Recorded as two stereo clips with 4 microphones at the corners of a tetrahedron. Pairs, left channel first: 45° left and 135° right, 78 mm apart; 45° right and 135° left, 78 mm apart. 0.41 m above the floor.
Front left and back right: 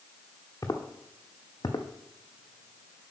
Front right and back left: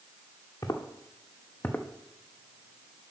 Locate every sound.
0.6 s footsteps: straight ahead, 1.3 m; by 3.0 s 70° left, 0.9 m